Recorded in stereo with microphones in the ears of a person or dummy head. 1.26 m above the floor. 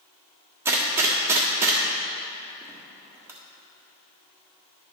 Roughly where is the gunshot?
Centre.